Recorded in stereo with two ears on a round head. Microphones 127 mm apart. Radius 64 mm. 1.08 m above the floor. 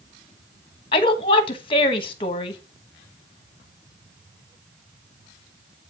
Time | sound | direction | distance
0.9 | a woman speaking | 35° left (ahead or behind) | 1.2 m